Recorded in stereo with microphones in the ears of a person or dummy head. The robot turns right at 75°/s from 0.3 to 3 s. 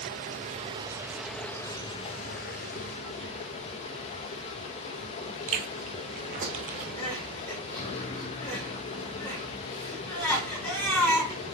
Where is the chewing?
40° right (ahead or behind), 1.3 m.